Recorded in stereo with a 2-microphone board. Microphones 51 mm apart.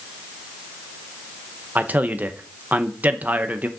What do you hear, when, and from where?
1.8 s a man speaking: 35° right (ahead or behind), 0.9 m